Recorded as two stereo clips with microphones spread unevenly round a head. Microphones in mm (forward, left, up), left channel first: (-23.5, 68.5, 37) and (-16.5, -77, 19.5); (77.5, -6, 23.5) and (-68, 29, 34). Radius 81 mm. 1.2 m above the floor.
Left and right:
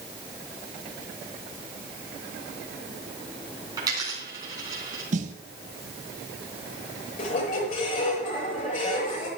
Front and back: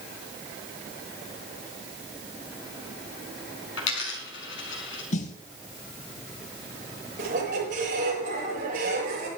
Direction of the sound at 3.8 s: 15° right.